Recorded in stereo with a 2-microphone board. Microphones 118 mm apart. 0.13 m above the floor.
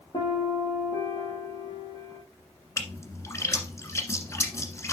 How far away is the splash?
About 1.4 m.